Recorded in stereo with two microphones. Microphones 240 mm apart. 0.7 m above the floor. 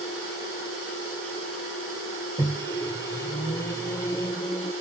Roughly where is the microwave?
Centre.